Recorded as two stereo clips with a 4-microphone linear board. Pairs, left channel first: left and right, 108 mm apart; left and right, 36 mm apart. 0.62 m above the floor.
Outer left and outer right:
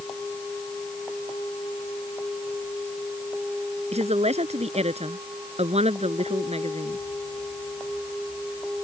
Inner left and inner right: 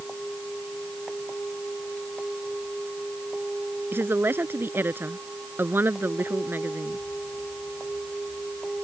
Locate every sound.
3.9 s a woman speaking: 85° right; by 7.0 s 75° right (ahead or behind)